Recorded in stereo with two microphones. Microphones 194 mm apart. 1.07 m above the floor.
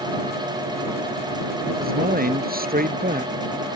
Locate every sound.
1.8 s a man speaking: 50° right (ahead or behind)